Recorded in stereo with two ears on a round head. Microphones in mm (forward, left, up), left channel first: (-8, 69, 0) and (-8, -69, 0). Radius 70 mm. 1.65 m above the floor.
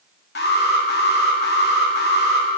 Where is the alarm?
75° left (ahead or behind), 2.5 m.